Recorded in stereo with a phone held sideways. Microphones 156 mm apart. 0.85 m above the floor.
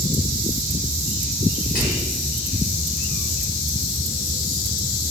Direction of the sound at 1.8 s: 60° left (ahead or behind).